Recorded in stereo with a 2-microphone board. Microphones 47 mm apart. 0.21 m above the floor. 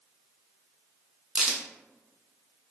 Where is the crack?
15° right (ahead or behind), 0.7 m.